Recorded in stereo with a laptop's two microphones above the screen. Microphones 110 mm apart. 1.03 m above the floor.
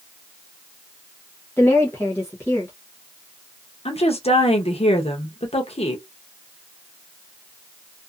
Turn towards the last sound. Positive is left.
turn(degrees=70)  # may be behind; listen again after turning